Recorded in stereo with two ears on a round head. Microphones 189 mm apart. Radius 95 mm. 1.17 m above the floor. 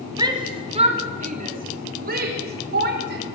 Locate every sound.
0.2 s a shout: 20° right (ahead or behind), 3 m; by 3.2 s 55° right (ahead or behind), 5 m